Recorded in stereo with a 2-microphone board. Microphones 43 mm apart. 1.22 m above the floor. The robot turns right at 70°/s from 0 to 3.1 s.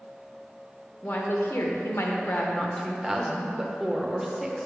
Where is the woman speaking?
40° left, 0.8 m; by 4.7 s 170° right, 0.8 m.